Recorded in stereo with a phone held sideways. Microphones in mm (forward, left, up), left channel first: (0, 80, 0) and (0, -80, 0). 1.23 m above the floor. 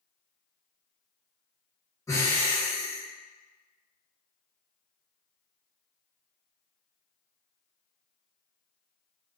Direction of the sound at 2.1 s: 15° left (ahead or behind).